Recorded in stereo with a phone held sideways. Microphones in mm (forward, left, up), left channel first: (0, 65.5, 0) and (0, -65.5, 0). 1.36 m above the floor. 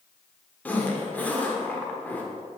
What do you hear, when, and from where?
0.7 s a zipper: 10° left (ahead or behind), 1.2 m